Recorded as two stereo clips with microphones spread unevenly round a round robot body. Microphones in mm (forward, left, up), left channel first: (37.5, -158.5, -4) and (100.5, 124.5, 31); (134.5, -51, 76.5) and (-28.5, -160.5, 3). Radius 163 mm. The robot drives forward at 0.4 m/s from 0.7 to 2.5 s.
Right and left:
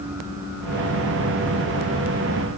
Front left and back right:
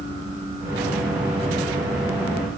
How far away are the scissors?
No scissors in this recording.